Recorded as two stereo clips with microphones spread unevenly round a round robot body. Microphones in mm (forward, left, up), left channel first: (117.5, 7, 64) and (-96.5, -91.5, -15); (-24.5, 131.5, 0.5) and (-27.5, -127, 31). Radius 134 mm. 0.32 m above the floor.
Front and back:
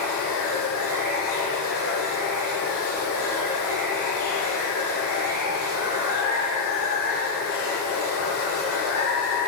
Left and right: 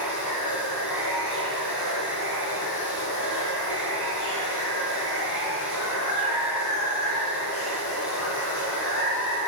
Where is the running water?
60° left, 3.5 m.